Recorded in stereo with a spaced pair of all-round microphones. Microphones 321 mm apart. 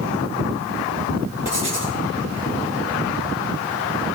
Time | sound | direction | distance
1.4 | writing | 20° left (ahead or behind) | 5.5 m